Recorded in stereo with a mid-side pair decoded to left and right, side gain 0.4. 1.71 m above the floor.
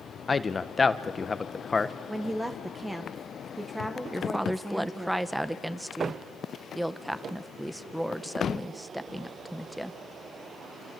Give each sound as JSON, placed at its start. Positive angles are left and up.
{"t": 0.3, "sound": "a man speaking", "azimuth_deg": 30, "distance_m": 1.3}
{"t": 2.1, "sound": "a woman speaking", "azimuth_deg": -15, "distance_m": 1.5}
{"t": 4.1, "sound": "a woman speaking", "azimuth_deg": -10, "distance_m": 1.5}